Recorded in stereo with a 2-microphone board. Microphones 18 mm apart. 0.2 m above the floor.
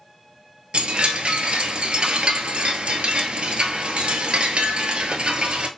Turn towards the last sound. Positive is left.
turn(degrees=-80)